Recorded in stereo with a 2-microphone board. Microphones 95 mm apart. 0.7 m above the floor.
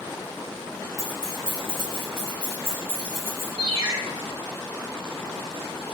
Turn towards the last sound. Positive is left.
turn(degrees=-65)  # may be behind; listen again after turning